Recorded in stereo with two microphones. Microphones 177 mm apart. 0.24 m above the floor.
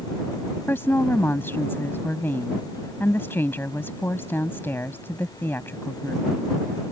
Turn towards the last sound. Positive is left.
turn(degrees=15)  # may be behind; listen again after turning